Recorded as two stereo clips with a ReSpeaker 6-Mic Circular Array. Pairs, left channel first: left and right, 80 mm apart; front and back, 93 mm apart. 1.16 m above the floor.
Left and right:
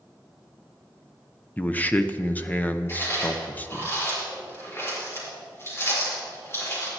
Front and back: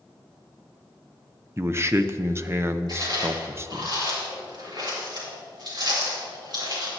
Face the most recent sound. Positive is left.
turn(degrees=145)